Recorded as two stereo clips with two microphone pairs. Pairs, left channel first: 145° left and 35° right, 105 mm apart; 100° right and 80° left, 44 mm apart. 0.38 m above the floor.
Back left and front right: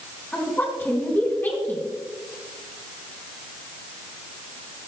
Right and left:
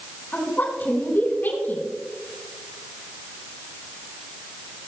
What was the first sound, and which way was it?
A woman speaking, 145° right.